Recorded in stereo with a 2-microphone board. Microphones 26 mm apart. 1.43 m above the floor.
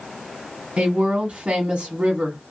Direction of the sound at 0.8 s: 50° right (ahead or behind).